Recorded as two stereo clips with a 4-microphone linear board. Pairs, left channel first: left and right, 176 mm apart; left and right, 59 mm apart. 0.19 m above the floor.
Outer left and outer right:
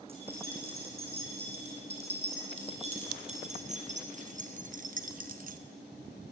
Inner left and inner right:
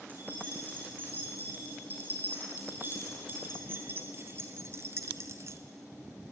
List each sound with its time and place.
0.1 s keys jangling: 35° right (ahead or behind), 7.5 m; by 5.6 s 50° right (ahead or behind), 1.2 m